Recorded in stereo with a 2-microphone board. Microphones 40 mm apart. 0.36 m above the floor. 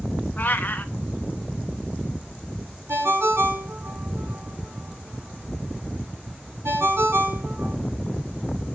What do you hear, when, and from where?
0.4 s a cat meowing: 45° left (ahead or behind), 0.7 m
2.9 s a ringtone: 70° right (ahead or behind), 2.5 m